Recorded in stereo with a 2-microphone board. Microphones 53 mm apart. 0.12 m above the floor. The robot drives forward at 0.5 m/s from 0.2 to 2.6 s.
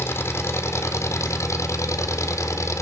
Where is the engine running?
55° left (ahead or behind), 1.5 m; by 2.8 s 70° left (ahead or behind), 1.3 m.